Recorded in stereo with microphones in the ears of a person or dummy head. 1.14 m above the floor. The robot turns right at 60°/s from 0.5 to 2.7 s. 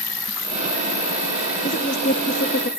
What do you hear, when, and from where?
0.0 s an insect: straight ahead, 7 m; by 2.8 s 130° left, 7 m
1.6 s a woman speaking: 45° left, 0.9 m; by 2.7 s 110° left, 0.9 m